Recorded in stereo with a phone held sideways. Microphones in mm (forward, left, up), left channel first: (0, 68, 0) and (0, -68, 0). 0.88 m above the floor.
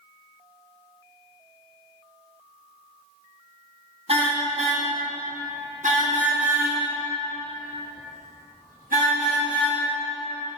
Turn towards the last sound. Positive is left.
turn(degrees=-90)